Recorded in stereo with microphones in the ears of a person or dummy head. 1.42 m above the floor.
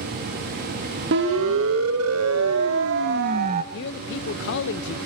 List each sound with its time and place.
1.1 s a siren: 70° right (ahead or behind), 2.5 m; by 3.6 s 35° right (ahead or behind), 1.8 m
3.7 s a man speaking: 65° left (ahead or behind), 0.8 m